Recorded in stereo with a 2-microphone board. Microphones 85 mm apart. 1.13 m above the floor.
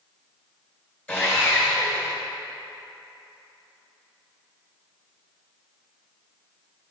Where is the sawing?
15° left (ahead or behind), 2.5 m.